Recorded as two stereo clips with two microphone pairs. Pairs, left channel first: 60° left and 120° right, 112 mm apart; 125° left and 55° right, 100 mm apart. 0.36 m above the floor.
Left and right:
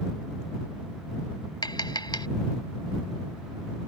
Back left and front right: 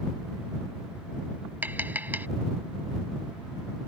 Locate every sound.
1.6 s tapping: 20° left